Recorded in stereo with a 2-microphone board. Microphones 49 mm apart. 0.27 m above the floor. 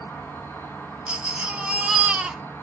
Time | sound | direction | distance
0.0 | an insect | 45° left (ahead or behind) | 1.1 m
1.1 | a baby crying | 20° right (ahead or behind) | 1.0 m